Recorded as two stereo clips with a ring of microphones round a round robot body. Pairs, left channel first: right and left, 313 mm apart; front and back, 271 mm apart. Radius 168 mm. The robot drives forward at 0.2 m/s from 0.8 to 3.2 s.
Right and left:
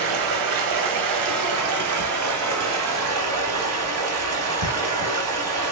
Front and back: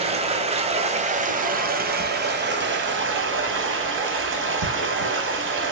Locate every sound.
0.0 s running water: 110° left, 0.9 m; by 5.7 s 135° left, 1.2 m